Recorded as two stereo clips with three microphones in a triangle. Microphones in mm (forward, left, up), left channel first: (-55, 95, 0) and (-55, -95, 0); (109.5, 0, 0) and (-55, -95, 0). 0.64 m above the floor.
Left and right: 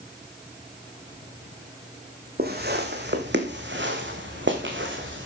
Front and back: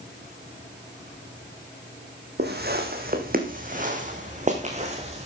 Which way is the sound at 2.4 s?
120° right.